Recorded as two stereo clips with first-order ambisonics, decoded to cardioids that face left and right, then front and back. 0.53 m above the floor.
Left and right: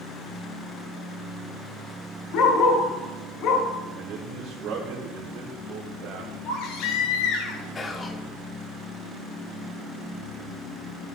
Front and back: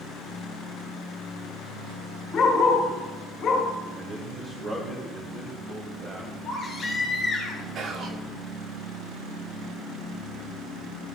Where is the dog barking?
60° left, 3.5 m.